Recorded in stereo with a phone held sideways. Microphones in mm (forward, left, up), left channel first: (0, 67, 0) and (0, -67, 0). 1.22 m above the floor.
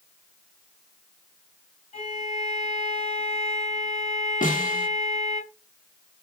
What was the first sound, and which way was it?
A violin, 55° left (ahead or behind).